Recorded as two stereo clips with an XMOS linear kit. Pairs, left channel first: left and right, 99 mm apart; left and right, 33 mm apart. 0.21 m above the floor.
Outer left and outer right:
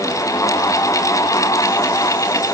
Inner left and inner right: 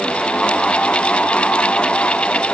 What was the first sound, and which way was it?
Only background noise.